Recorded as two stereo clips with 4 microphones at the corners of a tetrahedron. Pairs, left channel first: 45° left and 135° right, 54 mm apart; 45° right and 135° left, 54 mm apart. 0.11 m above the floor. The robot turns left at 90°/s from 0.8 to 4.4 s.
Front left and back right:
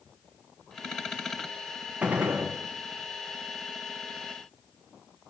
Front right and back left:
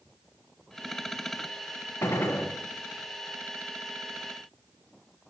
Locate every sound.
2.0 s a gunshot: 70° right, 4 m; by 2.5 s 115° right, 4 m